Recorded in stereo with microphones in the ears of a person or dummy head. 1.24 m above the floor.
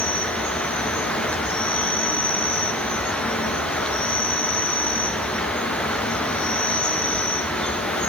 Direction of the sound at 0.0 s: 5° left (ahead or behind).